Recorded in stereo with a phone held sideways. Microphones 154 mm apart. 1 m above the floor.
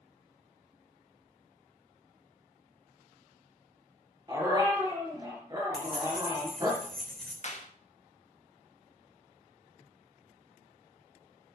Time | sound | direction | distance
4.3 | a dog barking | 25° right (ahead or behind) | 4.5 m
5.7 | keys jangling | 5° left (ahead or behind) | 3 m
7.4 | a clap | 50° left (ahead or behind) | 1.5 m